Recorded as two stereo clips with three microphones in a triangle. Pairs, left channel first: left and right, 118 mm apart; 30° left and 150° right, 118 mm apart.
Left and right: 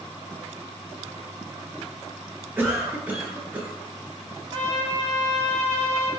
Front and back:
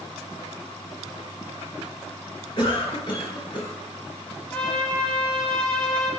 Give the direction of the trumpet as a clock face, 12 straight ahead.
1 o'clock.